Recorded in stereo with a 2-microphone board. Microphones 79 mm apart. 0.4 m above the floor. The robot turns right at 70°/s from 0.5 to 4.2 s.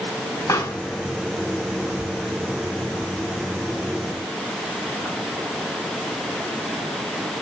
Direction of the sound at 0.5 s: 50° left (ahead or behind).